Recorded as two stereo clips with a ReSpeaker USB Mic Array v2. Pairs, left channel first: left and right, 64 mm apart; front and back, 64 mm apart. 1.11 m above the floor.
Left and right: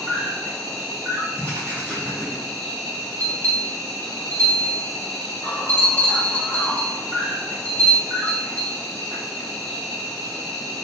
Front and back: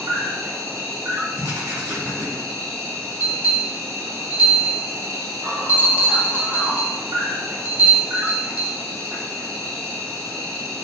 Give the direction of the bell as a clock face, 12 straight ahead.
8 o'clock.